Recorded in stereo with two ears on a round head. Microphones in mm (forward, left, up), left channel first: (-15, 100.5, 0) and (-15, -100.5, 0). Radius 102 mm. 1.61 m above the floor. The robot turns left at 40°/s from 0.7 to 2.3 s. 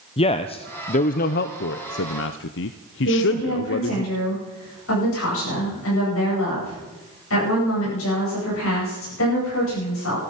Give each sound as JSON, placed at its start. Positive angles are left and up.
{"t": 0.2, "sound": "a man speaking", "side_deg": 25, "distance_m": 0.6}
{"t": 3.0, "sound": "a woman speaking", "side_deg": 60, "distance_m": 9.5}